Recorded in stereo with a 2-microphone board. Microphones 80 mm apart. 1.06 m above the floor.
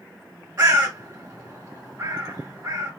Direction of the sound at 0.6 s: 45° right (ahead or behind).